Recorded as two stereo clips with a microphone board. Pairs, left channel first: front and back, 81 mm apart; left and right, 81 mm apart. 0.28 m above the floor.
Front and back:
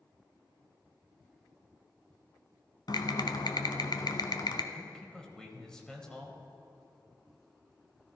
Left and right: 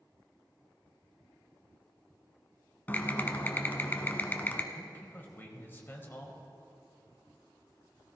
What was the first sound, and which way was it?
Typing on a keyboard, 25° left.